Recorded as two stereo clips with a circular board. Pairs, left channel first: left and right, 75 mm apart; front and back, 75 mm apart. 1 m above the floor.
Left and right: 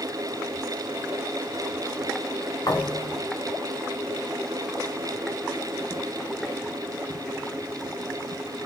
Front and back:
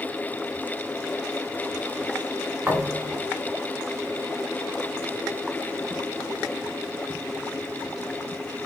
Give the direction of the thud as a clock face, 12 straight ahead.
8 o'clock.